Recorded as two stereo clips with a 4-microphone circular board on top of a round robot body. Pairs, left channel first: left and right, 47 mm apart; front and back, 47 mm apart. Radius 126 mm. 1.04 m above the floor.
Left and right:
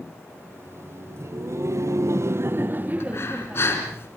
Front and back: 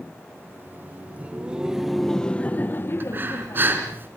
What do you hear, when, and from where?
0.3 s laughter: 135° right, 1.7 m; by 3.7 s 15° right, 1.4 m
3.0 s breathing: 130° left, 4 m